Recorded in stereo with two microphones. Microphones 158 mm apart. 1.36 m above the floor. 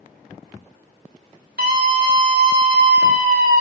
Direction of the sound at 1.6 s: 75° right (ahead or behind).